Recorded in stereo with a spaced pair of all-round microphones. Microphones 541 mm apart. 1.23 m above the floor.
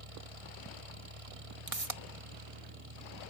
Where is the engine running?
80° right.